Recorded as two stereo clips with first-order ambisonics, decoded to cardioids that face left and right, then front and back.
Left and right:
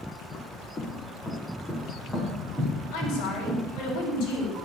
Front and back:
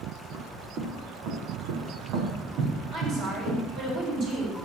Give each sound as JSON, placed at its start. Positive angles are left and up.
{"t": 0.3, "sound": "footsteps", "azimuth_deg": 155, "distance_m": 1.8}
{"t": 2.9, "sound": "a woman speaking", "azimuth_deg": 130, "distance_m": 6.0}